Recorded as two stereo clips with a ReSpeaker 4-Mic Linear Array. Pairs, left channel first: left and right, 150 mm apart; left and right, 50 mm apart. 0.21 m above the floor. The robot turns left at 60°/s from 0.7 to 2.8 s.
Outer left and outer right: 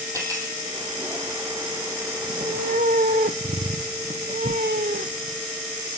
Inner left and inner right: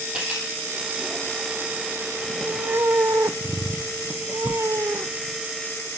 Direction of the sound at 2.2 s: 50° right.